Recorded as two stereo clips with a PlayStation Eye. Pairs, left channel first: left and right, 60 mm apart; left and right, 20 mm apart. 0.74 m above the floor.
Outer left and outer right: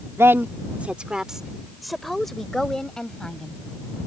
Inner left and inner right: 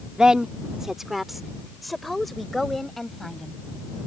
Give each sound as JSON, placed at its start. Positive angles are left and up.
{"t": 0.2, "sound": "a woman speaking", "side_deg": -45}